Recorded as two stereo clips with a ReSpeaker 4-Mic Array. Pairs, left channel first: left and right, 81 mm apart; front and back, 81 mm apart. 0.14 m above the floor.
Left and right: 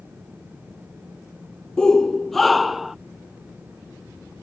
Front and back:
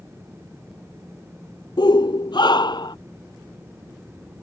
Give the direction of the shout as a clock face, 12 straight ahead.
12 o'clock.